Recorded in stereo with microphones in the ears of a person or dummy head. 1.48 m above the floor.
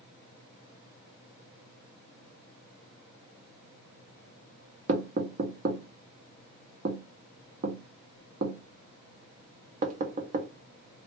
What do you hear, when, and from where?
4.9 s knocking: 50° right (ahead or behind), 0.6 m